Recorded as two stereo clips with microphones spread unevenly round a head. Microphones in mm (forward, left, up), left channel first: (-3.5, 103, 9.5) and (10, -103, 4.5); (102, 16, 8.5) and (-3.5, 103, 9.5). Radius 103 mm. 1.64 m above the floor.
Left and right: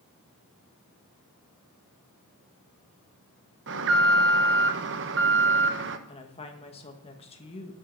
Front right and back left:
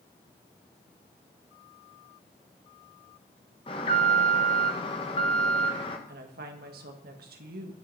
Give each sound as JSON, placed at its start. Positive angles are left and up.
{"t": 3.7, "sound": "an alarm", "azimuth_deg": -95, "distance_m": 1.0}
{"t": 6.1, "sound": "a woman speaking", "azimuth_deg": 155, "distance_m": 1.7}